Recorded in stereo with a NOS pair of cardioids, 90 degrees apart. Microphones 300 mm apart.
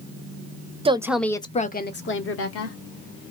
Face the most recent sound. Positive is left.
turn(degrees=55)